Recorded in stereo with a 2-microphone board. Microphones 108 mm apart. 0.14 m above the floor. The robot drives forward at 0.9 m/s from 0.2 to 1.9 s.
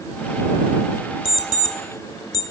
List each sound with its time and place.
1.2 s an alarm clock: 45° left (ahead or behind), 0.8 m; by 2.4 s 35° left (ahead or behind), 1.0 m